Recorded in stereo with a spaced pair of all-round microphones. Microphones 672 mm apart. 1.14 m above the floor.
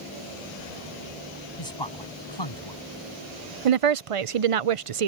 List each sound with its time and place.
1.6 s a man speaking: 40° left (ahead or behind)
3.6 s a woman speaking: 55° right (ahead or behind)